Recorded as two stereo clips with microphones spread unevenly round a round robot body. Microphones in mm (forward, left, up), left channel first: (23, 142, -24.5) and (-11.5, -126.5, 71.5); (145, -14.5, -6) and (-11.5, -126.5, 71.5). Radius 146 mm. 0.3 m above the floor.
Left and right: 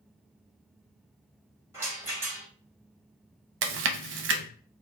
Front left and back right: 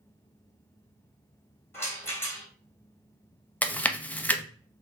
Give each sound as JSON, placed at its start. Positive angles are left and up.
{"t": 1.7, "sound": "a rattle", "azimuth_deg": 5, "distance_m": 1.6}
{"t": 3.6, "sound": "chewing", "azimuth_deg": -45, "distance_m": 0.5}